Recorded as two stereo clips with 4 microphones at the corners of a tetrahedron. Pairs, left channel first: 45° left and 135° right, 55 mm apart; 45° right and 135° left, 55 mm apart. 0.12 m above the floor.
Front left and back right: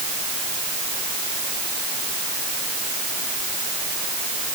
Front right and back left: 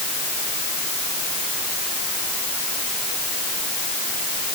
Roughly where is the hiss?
No hiss in this recording.